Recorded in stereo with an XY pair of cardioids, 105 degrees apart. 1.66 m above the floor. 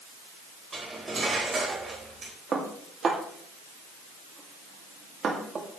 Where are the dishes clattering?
40° right, 2.5 m.